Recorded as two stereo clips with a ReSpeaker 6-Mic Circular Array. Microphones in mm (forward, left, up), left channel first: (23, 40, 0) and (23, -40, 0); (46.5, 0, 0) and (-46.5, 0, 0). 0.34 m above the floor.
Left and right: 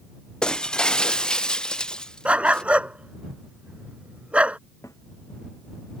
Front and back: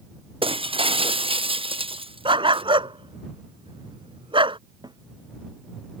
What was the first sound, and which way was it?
Breaking glass, 170° left.